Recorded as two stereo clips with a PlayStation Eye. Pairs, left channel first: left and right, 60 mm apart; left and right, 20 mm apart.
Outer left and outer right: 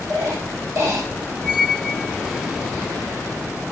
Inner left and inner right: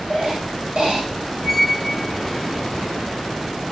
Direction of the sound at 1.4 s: 10° right (ahead or behind).